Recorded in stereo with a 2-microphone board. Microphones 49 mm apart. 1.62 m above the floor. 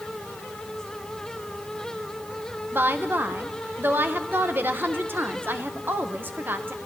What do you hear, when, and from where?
2.7 s a woman speaking: 40° right (ahead or behind), 1.6 m